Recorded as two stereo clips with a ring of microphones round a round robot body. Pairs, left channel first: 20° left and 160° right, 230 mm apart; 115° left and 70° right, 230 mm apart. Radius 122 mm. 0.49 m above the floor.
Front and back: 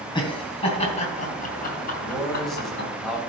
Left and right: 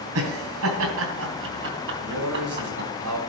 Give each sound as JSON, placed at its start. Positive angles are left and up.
{"t": 0.1, "sound": "laughter", "azimuth_deg": -50, "distance_m": 3.0}
{"t": 2.0, "sound": "a man speaking", "azimuth_deg": -65, "distance_m": 3.0}